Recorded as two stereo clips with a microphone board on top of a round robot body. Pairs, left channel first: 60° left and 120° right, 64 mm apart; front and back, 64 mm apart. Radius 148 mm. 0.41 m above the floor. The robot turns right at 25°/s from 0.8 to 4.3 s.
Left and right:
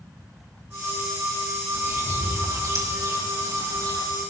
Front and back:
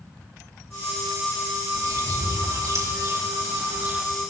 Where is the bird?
170° right, 4 m; by 4.0 s 115° right, 4 m.